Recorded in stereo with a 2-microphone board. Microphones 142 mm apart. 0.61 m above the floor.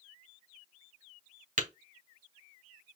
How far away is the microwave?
No microwave in this recording.